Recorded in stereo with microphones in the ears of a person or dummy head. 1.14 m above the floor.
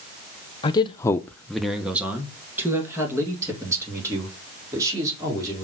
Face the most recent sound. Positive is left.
turn(degrees=-20)  # may be behind; listen again after turning